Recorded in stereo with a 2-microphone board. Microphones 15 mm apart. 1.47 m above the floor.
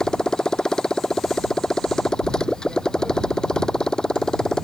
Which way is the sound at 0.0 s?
55° left (ahead or behind).